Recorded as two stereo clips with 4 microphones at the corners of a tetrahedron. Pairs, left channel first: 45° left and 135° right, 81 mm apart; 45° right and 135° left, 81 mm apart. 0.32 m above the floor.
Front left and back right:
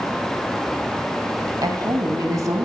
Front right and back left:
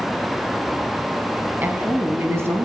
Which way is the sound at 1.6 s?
160° right.